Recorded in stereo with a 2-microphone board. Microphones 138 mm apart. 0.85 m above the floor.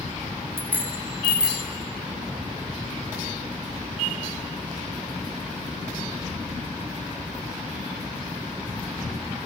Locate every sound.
0.6 s a bicycle bell: 15° right (ahead or behind), 3.5 m; by 1.7 s 5° right (ahead or behind), 3.5 m